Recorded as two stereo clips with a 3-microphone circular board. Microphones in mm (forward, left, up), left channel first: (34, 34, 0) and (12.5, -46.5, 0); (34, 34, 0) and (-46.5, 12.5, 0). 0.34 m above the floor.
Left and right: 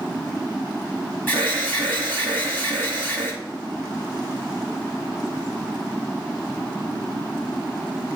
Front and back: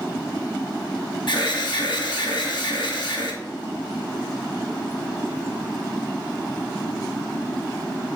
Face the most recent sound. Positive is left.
turn(degrees=10)